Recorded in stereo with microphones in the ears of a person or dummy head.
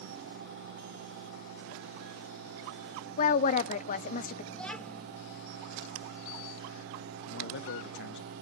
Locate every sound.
3.2 s a woman speaking: 40° left (ahead or behind), 0.8 m
4.5 s a child speaking: 10° left (ahead or behind), 2.0 m
7.3 s a man speaking: 60° left (ahead or behind), 1.1 m